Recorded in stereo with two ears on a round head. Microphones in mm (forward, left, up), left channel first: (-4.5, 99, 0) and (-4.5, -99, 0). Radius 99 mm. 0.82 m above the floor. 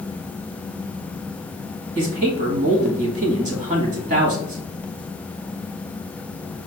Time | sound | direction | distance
1.9 | a man speaking | 35° right (ahead or behind) | 1.3 m